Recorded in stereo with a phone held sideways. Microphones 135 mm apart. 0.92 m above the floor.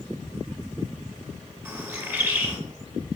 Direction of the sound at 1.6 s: 15° right (ahead or behind).